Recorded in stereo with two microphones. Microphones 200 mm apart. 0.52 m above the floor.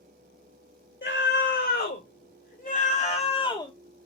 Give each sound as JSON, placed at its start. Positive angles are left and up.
{"t": 1.0, "sound": "a scream", "side_deg": 60, "distance_m": 2.5}